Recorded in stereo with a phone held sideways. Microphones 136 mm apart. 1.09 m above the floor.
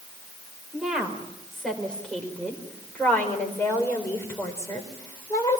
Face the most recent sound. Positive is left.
turn(degrees=25)  # may be behind; listen again after turning